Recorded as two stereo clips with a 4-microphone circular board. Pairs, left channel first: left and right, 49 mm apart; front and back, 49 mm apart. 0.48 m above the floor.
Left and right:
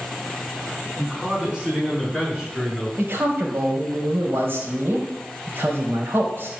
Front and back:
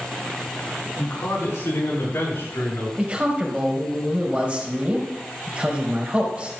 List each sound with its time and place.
1.0 s a man speaking: 10° right, 6 m; by 2.9 s 5° right, 8.5 m
3.0 s a man speaking: 120° right, 2.5 m